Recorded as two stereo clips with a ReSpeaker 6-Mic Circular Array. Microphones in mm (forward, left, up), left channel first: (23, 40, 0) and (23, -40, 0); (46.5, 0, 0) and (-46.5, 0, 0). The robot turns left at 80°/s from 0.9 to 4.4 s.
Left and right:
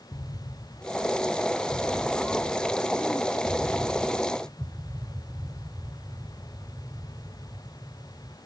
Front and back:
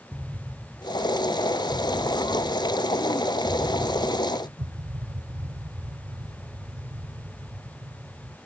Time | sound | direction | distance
0.1 | an explosion | 100° left | 0.7 m